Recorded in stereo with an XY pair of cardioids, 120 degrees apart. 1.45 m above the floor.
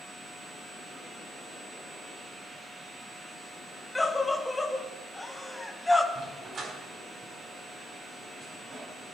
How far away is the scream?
About 1.4 m.